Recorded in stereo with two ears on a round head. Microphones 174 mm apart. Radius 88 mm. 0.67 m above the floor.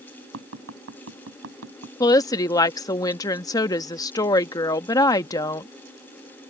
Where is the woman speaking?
20° left (ahead or behind).